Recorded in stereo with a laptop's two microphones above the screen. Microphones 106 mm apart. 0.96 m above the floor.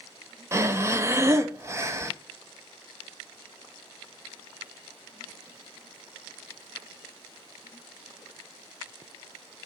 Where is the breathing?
25° right (ahead or behind), 0.7 m.